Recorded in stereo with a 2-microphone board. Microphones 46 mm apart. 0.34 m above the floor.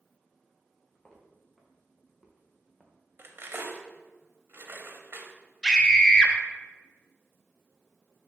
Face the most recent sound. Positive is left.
turn(degrees=15)  # may be behind; listen again after turning